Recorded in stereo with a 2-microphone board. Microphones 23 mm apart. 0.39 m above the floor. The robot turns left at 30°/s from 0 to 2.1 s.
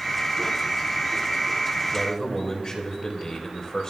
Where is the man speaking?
30° left (ahead or behind), 1.9 m; by 3.9 s 35° left (ahead or behind), 1.9 m.